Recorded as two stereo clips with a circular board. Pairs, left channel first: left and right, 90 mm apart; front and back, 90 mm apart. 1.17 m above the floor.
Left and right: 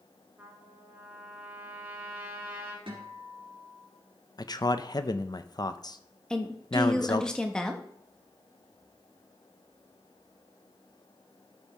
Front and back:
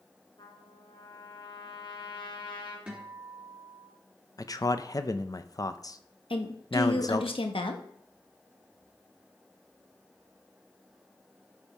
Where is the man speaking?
50° left, 0.6 m.